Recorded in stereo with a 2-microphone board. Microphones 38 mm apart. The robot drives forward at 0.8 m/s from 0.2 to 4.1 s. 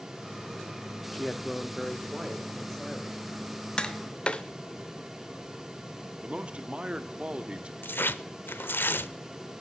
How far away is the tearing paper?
About 0.6 m.